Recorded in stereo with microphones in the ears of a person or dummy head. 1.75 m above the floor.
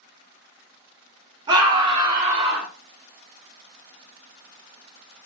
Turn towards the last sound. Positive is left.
turn(degrees=-20)  # may be behind; listen again after turning